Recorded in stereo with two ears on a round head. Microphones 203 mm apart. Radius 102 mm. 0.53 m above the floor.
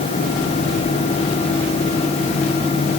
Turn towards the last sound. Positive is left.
No sound to turn to.